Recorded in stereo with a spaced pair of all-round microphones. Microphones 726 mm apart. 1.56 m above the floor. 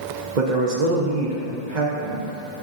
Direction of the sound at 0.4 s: 75° right (ahead or behind).